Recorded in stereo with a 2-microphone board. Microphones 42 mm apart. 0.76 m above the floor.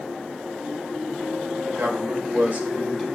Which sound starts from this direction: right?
A man speaking, at 1.7 s.